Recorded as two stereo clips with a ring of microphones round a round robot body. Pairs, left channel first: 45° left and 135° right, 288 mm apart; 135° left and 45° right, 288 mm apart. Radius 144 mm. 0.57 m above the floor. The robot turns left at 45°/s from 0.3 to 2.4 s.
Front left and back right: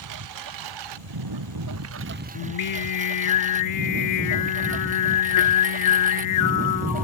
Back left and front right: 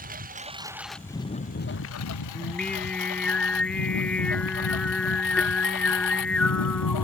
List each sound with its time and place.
0.0 s a lawn mower: 110° right; by 7.0 s 160° left
2.4 s singing: 50° left